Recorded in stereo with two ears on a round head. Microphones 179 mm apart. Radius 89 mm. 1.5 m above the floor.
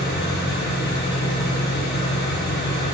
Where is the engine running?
50° left (ahead or behind), 2.5 m.